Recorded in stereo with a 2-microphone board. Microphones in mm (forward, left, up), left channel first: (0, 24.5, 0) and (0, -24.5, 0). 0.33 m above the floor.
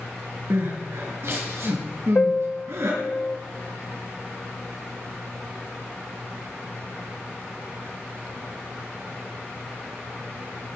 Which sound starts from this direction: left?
A piano, at 2.1 s.